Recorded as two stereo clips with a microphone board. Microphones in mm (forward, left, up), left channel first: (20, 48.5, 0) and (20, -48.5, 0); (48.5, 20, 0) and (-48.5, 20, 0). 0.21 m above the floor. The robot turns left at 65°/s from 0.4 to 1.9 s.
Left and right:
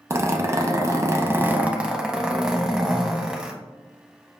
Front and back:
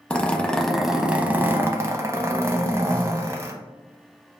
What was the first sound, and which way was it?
A zipper, 65° right.